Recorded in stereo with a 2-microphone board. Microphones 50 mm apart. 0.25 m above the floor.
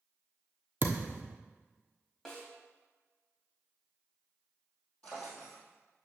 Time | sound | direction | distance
0.8 | a thud | 40° right (ahead or behind) | 1.2 m
2.2 | a snare drum | 5° left (ahead or behind) | 1.9 m
5.0 | a drawer | 25° left (ahead or behind) | 3 m